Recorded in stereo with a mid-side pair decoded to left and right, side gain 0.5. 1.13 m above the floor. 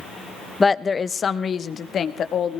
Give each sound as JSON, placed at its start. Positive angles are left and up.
{"t": 0.6, "sound": "a woman speaking", "azimuth_deg": 25, "distance_m": 0.9}